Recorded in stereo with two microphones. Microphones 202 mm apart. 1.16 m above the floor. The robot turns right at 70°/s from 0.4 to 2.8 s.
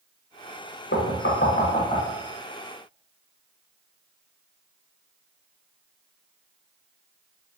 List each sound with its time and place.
0.9 s knocking: 65° left (ahead or behind), 0.5 m; by 2.1 s 15° left (ahead or behind), 0.5 m